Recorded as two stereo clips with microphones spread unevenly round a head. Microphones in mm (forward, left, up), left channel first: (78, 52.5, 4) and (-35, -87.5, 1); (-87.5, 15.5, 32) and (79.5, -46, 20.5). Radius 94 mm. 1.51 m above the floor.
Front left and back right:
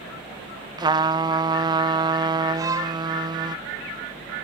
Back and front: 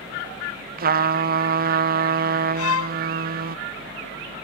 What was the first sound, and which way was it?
A trumpet, 60° right.